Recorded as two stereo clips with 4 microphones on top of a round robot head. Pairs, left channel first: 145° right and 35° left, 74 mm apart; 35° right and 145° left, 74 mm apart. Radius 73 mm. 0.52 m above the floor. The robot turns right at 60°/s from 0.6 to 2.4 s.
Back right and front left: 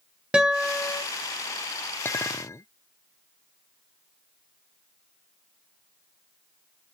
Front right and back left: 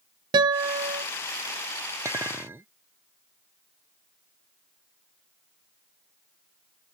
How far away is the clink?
About 0.7 m.